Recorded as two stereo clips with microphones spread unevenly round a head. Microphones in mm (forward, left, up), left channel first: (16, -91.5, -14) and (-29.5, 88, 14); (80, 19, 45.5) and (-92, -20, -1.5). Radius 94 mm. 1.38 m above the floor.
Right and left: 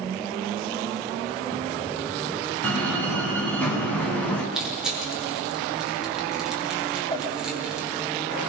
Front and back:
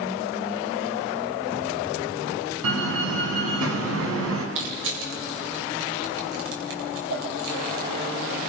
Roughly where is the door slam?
Behind.